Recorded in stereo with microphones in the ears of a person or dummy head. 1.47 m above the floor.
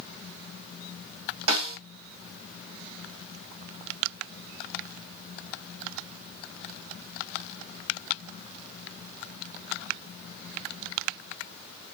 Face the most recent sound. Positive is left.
turn(degrees=-85)